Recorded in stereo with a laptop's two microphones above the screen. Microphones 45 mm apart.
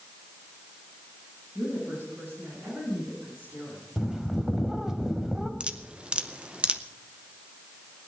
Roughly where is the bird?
Centre.